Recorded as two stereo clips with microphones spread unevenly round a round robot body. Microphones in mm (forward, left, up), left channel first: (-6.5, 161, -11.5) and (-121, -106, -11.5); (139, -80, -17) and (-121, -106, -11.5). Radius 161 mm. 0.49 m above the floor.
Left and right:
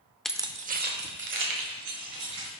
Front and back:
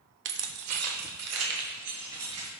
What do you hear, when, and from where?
0.2 s keys jangling: 155° left, 0.5 m; by 2.5 s 155° right, 2.5 m